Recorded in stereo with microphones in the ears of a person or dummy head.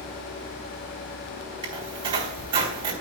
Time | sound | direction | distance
1.6 | a squeak | 30° right (ahead or behind) | 3.5 m